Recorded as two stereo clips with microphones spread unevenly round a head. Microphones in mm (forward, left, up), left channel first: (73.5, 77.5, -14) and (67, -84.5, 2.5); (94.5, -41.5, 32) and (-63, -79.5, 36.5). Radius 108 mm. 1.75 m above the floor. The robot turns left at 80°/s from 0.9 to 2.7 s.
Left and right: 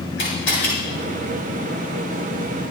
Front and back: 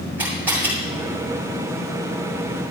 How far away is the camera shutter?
About 8.5 m.